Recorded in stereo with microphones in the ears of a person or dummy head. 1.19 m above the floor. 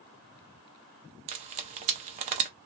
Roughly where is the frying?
Right.